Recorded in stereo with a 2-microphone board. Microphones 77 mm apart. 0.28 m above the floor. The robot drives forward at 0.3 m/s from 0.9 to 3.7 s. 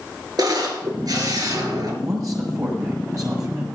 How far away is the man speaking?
About 6 m.